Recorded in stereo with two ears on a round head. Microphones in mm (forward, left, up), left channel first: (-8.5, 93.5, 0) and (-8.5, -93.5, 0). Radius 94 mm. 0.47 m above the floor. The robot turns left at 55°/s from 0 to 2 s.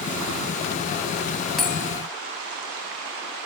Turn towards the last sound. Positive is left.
turn(degrees=-20)  # may be behind; listen again after turning